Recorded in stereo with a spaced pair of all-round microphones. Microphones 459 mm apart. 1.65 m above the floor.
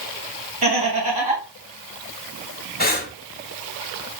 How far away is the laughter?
About 2 m.